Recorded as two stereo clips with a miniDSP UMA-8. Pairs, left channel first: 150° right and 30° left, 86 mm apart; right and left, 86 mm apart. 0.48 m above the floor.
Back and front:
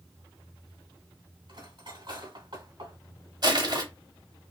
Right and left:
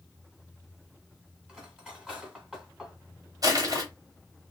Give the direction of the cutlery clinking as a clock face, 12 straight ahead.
12 o'clock.